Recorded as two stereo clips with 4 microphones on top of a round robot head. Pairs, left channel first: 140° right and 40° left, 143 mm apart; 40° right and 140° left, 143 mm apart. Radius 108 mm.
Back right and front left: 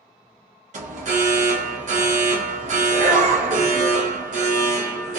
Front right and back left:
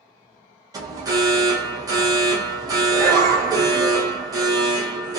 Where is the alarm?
75° left, 0.7 m.